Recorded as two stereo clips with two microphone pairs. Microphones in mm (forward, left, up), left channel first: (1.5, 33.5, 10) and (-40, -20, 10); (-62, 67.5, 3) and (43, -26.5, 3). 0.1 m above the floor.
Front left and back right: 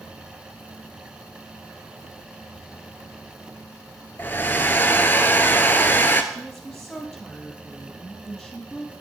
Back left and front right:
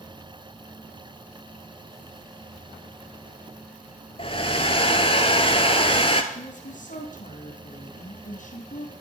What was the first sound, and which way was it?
A hair dryer, 105° left.